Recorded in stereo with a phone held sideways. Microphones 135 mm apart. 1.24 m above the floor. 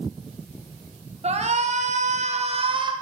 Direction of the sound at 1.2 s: 50° right (ahead or behind).